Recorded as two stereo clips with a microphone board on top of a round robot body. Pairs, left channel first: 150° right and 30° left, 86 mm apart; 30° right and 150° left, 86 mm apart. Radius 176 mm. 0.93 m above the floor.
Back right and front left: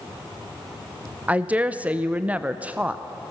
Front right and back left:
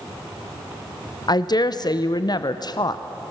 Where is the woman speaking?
40° right, 1.0 m.